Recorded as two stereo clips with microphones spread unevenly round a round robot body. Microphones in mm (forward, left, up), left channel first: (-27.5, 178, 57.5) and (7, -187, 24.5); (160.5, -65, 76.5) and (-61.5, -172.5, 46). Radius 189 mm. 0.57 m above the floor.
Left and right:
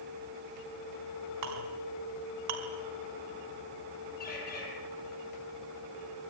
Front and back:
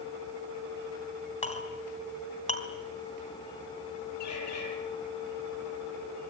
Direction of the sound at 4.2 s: 30° left.